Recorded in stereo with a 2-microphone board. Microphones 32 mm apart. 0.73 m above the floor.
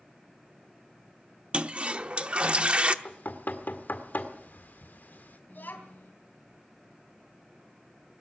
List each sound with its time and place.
1.5 s a toilet flushing: 40° right (ahead or behind), 0.8 m
3.0 s knocking: 70° left (ahead or behind), 1.8 m
5.5 s a child speaking: 70° left (ahead or behind), 3.5 m